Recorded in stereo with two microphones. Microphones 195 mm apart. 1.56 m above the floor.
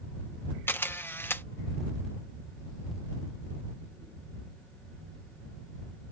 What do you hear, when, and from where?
0.7 s a camera shutter: 10° left (ahead or behind)